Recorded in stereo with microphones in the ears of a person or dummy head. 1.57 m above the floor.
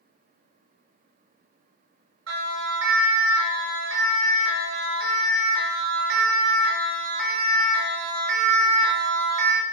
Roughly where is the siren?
Right.